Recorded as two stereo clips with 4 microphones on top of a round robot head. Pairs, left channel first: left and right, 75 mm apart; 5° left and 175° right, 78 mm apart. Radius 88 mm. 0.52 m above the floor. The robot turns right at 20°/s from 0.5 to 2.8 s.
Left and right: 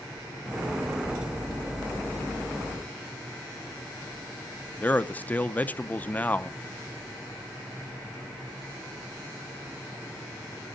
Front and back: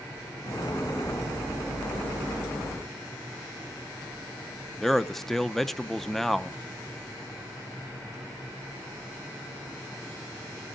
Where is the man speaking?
85° left, 0.7 m.